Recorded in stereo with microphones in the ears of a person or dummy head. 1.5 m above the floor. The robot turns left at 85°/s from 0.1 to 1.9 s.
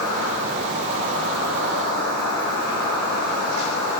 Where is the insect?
10° right (ahead or behind), 0.8 m; by 4.0 s centre (ahead or behind), 0.8 m.